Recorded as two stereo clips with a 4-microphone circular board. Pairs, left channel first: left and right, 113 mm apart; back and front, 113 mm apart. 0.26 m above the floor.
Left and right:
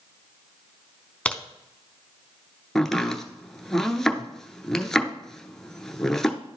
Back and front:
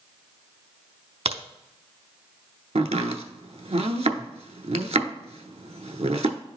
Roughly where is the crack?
Ahead.